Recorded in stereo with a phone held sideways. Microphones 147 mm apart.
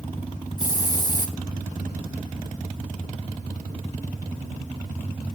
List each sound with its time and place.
0.6 s a hiss: 25° left (ahead or behind), 1.3 m